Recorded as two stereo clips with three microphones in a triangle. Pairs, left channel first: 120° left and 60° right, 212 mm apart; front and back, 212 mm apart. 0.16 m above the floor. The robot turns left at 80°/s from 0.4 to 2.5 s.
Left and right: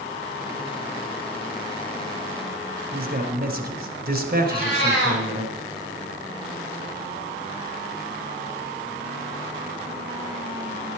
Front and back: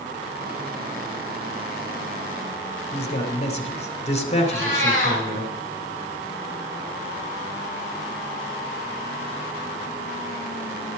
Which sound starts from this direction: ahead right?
A man speaking, at 2.9 s.